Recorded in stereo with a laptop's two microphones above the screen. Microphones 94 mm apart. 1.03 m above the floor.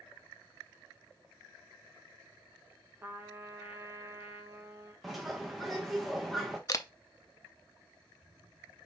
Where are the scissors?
No scissors in this recording.